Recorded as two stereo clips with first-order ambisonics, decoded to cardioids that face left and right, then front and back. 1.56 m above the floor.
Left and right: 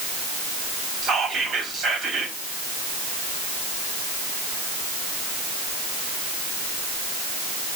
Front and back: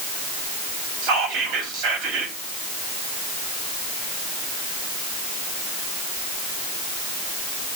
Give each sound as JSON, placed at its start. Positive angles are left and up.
{"t": 1.0, "sound": "whispering", "azimuth_deg": -165, "distance_m": 3.0}